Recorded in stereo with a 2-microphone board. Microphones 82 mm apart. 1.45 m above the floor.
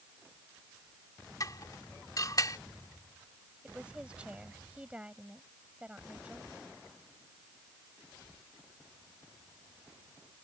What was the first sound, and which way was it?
Dishes clattering, 50° left (ahead or behind).